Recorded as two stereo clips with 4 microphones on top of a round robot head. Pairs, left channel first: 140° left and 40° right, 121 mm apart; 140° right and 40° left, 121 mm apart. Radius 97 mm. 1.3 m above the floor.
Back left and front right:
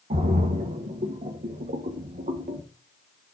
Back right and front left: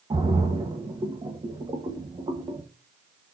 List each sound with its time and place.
0.1 s a splash: 15° right, 1.6 m